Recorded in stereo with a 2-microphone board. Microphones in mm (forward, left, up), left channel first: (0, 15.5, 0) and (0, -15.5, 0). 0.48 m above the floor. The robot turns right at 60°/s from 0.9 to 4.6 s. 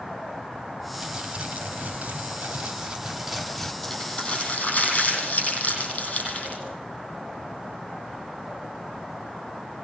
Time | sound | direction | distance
0.9 | crumpling | 170° right | 3.5 m
3.8 | crumpling | 5° left (ahead or behind) | 8.5 m